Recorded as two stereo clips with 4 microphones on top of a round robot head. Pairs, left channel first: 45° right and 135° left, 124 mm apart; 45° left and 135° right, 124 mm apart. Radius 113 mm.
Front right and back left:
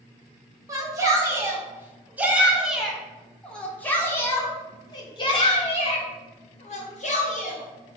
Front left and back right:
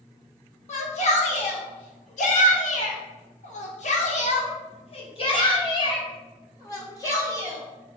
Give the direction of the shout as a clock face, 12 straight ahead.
10 o'clock.